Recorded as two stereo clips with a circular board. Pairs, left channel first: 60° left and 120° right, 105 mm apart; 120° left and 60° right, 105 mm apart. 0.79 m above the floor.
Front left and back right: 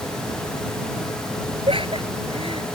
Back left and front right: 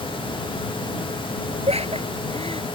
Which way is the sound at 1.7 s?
85° right.